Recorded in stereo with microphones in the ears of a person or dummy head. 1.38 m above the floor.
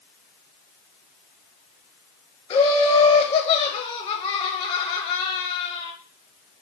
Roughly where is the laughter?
Centre.